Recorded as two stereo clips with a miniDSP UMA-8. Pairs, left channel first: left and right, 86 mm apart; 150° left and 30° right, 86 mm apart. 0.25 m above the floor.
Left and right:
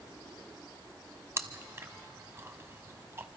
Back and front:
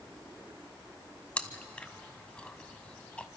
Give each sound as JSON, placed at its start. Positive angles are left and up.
{"t": 1.4, "sound": "chewing", "azimuth_deg": -140, "distance_m": 1.1}